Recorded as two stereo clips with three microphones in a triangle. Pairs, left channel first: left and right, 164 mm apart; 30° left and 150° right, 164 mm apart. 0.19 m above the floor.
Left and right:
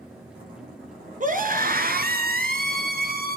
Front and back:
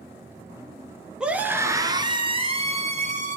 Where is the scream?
65° right, 2.5 m; by 3.4 s 110° right, 3.5 m.